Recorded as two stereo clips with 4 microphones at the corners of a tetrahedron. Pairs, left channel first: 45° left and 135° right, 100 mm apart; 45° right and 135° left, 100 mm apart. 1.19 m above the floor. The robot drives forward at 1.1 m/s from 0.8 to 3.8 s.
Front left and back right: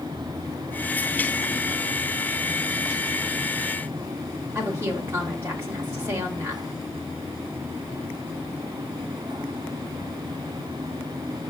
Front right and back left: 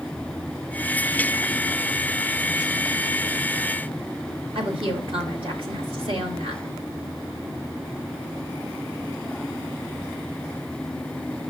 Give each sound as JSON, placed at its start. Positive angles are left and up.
{"t": 4.5, "sound": "a woman speaking", "azimuth_deg": 160, "distance_m": 1.9}